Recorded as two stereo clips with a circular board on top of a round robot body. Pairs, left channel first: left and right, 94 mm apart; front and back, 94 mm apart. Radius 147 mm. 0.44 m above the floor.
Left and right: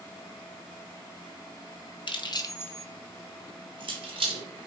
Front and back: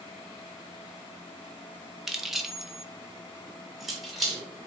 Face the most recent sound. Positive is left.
turn(degrees=-90)